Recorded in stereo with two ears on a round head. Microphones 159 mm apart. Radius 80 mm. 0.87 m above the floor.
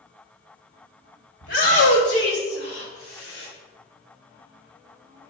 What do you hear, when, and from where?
1.4 s a shout: 75° left (ahead or behind), 4 m; by 3.5 s 70° left (ahead or behind), 5 m